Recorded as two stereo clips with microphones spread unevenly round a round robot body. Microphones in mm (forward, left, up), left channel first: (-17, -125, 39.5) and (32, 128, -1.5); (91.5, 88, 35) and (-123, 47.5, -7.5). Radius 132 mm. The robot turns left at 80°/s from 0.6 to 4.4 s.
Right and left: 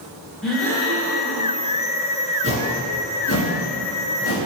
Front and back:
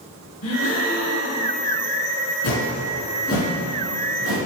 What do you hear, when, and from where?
0.4 s a gasp: 5° right, 1.2 m; by 1.6 s 85° right, 1.2 m
2.4 s a whoosh: 15° left, 1.8 m; by 4.4 s 140° right, 1.8 m